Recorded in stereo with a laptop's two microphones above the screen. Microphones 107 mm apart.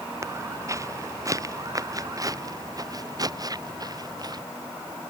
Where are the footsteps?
30° right (ahead or behind); by 4.4 s 40° right (ahead or behind).